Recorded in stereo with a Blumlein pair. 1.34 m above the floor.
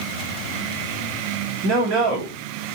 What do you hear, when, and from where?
1.6 s a man speaking: 30° right, 1.9 m